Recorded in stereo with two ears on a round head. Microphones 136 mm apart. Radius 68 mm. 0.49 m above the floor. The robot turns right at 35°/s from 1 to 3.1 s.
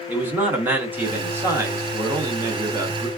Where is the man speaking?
15° right (ahead or behind), 0.7 m; by 3.1 s 20° right (ahead or behind), 0.7 m.